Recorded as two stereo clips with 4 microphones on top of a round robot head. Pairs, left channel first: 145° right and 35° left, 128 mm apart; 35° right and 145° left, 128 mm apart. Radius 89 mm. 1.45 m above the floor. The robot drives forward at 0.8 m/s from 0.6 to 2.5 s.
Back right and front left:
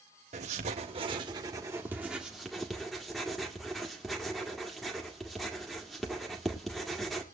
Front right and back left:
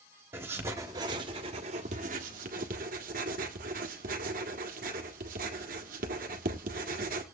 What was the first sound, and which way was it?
Writing, 70° left.